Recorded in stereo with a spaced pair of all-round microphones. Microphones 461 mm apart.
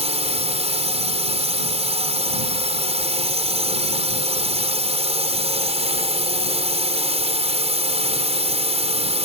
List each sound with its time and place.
0.0 s a drone: 15° right (ahead or behind)